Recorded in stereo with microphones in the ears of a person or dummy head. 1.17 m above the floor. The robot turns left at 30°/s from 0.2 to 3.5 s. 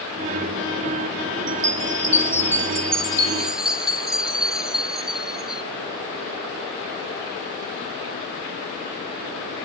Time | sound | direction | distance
1.5 | a chime | 115° right | 1.1 m